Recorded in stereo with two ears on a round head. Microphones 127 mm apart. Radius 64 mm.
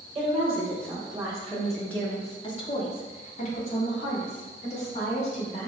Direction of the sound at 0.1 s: 30° right (ahead or behind).